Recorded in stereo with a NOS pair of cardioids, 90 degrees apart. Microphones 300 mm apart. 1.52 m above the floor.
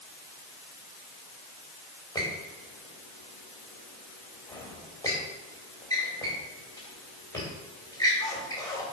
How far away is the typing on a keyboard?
No typing on a keyboard in this recording.